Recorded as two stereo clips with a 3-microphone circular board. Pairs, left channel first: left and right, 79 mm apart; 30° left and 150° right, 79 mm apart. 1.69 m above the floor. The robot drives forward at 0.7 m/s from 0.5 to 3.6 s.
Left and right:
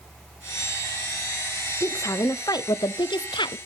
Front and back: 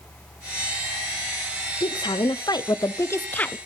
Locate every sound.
1.8 s a woman speaking: 40° left, 1.3 m; by 3.6 s 105° left, 0.8 m